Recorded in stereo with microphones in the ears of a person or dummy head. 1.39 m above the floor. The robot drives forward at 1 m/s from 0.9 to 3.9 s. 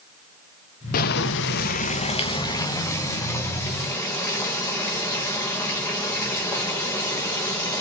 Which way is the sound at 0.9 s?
50° left (ahead or behind).